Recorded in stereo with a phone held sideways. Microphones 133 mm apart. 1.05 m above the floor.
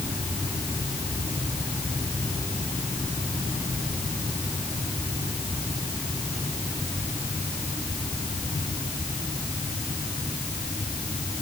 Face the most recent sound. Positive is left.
No sound to turn to.